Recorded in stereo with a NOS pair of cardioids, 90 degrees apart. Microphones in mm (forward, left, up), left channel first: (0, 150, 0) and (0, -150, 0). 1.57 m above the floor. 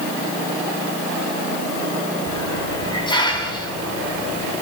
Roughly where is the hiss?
Ahead.